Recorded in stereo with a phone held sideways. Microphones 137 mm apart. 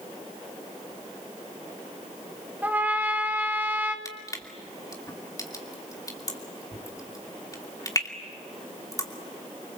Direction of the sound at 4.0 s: 25° left (ahead or behind).